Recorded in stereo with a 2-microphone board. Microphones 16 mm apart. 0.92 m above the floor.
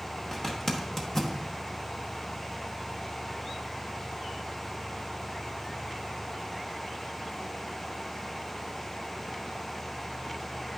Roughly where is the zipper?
Left.